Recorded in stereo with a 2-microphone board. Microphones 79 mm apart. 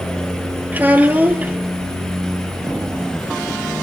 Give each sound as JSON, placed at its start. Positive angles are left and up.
{"t": 0.7, "sound": "a child speaking", "side_deg": -20, "distance_m": 2.0}